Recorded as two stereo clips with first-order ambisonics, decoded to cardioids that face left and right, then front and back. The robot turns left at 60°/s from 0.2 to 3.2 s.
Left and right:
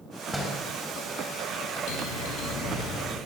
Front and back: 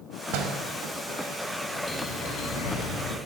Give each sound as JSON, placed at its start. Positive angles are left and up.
{"t": 0.3, "sound": "a door slam", "azimuth_deg": -175, "distance_m": 5.0}
{"t": 1.9, "sound": "a bell", "azimuth_deg": 85, "distance_m": 6.0}